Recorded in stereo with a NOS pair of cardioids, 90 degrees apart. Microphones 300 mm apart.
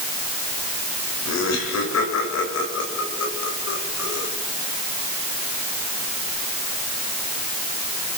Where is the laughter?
65° left, 9 m; by 4.3 s 60° left, 11 m.